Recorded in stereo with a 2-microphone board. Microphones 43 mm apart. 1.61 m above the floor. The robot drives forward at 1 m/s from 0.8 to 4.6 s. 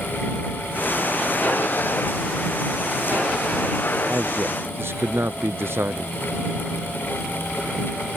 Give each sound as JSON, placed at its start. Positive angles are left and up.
{"t": 4.1, "sound": "a man speaking", "side_deg": -60}